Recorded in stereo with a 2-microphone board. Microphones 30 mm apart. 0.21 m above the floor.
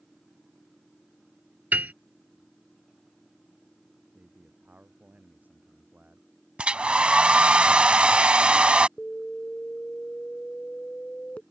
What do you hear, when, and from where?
1.7 s a piano: 75° right (ahead or behind)
4.2 s a man speaking: 65° right (ahead or behind)
6.6 s a hair dryer: 40° right (ahead or behind)
9.0 s an alarm: 55° left (ahead or behind)